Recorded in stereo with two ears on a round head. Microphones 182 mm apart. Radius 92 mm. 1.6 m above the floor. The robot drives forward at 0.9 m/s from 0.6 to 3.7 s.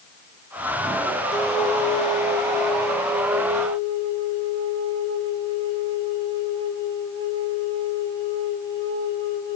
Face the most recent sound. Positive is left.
turn(degrees=15)  # may be behind; listen again after turning